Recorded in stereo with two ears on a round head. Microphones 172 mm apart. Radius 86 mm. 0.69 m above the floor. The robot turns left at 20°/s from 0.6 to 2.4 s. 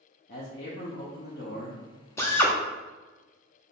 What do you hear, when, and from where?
0.3 s a man speaking: 55° left (ahead or behind), 0.9 m
2.2 s a drill: 15° left (ahead or behind), 0.7 m; by 2.5 s 10° left (ahead or behind), 0.7 m